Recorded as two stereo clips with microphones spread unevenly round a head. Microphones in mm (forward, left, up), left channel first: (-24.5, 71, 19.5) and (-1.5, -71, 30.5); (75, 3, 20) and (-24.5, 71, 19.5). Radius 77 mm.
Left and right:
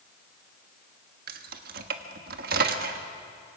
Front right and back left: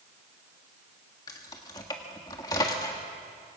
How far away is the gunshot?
I don't hear a gunshot.